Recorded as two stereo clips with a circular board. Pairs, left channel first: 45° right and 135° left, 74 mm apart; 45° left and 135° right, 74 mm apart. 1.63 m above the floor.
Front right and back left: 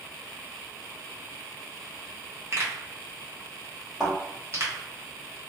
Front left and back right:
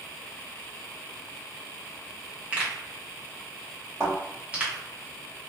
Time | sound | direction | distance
2.5 | a pop | 160° left | 0.9 m
4.0 | a thud | 145° right | 1.9 m